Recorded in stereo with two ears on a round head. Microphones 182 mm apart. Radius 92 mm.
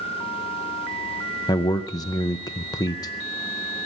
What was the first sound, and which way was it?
A man speaking, 20° left (ahead or behind).